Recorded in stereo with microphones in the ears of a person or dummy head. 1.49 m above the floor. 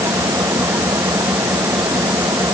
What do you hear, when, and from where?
0.0 s an engine running: 10° right (ahead or behind)